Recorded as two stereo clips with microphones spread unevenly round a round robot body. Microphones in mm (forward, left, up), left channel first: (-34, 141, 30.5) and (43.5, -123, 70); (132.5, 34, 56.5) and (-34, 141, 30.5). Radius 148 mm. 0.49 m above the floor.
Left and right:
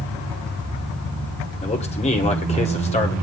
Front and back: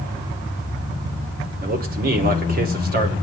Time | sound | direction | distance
1.6 | a man speaking | 160° left | 2 m